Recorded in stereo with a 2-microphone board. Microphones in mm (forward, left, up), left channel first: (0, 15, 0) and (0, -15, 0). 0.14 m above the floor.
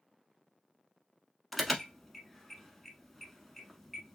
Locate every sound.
1.5 s an alarm: centre (ahead or behind), 0.7 m